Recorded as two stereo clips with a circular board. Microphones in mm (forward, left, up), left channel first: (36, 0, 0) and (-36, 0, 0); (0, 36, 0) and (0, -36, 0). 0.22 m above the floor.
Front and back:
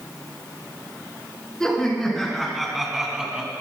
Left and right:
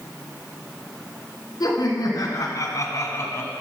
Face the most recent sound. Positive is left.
turn(degrees=110)